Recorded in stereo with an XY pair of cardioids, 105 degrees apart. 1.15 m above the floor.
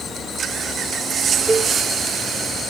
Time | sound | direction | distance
1.5 | a cowbell | 20° right | 1.1 m